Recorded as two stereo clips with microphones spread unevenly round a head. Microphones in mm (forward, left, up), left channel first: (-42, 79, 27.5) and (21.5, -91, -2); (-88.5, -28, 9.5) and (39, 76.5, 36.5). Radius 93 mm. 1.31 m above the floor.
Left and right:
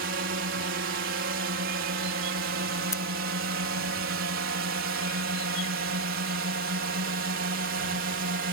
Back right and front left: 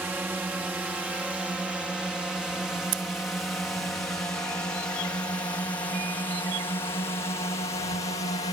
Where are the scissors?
30° left.